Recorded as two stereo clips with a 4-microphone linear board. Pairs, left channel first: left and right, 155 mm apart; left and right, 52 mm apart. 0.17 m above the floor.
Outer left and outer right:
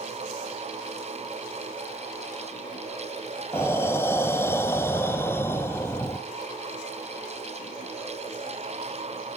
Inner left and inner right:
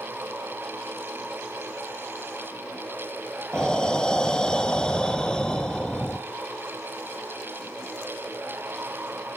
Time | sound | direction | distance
3.5 | breathing | 15° left (ahead or behind) | 0.6 m